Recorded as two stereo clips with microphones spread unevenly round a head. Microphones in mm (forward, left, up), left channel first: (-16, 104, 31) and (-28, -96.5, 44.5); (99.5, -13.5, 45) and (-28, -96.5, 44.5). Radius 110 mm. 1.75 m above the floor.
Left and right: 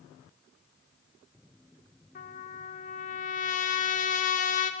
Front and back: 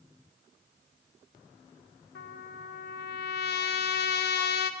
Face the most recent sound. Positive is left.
turn(degrees=30)